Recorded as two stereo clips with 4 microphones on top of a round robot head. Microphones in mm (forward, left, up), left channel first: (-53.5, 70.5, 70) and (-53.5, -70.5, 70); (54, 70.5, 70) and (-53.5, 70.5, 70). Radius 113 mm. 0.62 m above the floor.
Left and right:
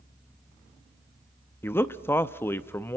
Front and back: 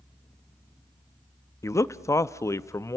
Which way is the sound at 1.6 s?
30° left.